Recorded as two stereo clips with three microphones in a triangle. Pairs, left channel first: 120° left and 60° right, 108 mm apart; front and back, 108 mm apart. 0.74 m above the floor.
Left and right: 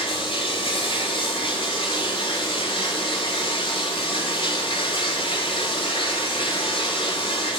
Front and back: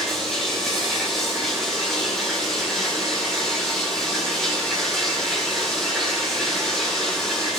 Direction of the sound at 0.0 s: 85° left.